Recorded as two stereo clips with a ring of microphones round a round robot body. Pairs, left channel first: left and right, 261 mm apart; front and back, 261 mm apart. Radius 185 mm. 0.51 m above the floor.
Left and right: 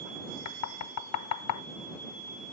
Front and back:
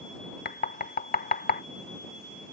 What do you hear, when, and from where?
0.5 s knocking: 60° left